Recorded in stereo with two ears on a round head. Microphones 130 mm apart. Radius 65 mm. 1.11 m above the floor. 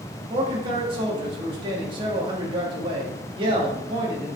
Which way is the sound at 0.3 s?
35° right (ahead or behind).